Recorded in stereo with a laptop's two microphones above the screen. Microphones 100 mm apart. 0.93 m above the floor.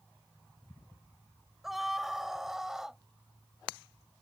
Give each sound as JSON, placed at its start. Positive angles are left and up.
{"t": 1.6, "sound": "a scream", "side_deg": 0}